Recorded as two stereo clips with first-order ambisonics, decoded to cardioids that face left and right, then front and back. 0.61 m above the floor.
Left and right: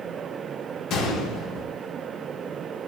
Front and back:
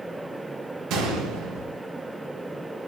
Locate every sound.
0.9 s a gunshot: 140° left, 0.5 m